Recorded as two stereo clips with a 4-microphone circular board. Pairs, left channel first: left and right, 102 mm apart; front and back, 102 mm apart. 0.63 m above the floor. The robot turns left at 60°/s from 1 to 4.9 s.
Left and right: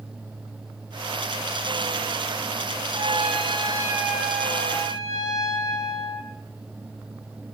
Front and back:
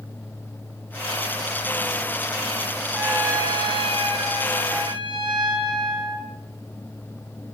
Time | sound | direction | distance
2.9 | a trumpet | 100° right | 4 m